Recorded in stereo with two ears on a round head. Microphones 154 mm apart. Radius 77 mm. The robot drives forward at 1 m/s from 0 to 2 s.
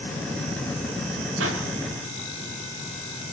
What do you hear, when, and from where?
1.4 s a pop: 85° right, 5.5 m